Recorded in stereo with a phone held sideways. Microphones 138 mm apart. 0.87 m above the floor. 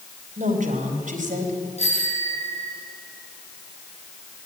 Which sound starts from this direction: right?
A woman speaking, at 0.4 s.